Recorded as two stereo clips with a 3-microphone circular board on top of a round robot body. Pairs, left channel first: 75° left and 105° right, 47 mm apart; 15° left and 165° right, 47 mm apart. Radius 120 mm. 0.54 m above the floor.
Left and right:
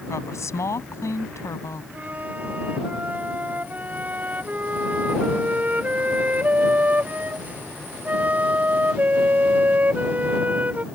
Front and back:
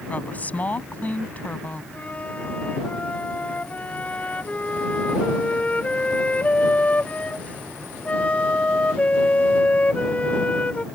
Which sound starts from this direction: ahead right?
A flute, at 1.9 s.